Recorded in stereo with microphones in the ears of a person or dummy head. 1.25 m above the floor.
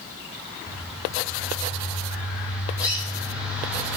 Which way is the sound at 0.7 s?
5° right (ahead or behind).